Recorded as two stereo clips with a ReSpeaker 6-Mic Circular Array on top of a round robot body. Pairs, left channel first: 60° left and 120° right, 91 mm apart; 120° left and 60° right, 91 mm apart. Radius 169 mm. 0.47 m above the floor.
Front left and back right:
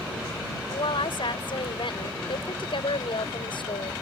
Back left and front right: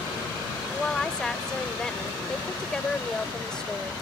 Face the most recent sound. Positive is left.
turn(degrees=40)